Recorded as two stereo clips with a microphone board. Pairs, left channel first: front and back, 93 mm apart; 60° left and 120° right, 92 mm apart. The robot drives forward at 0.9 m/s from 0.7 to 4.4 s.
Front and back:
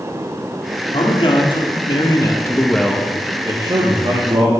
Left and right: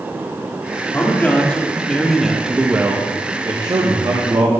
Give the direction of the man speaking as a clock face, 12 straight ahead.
12 o'clock.